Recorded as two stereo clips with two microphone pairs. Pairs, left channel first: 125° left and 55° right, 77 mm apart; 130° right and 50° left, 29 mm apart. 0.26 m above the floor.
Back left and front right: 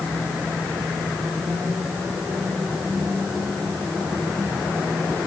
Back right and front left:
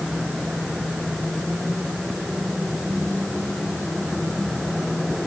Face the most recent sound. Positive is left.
No sound to turn to.